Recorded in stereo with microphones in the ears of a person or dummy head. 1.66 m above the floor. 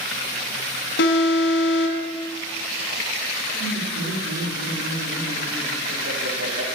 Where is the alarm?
70° left (ahead or behind), 2.5 m.